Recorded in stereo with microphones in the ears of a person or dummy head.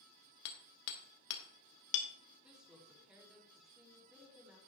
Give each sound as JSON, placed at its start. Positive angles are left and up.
{"t": 0.5, "sound": "hammering", "side_deg": 70, "distance_m": 1.9}
{"t": 2.4, "sound": "a woman speaking", "side_deg": 0, "distance_m": 3.5}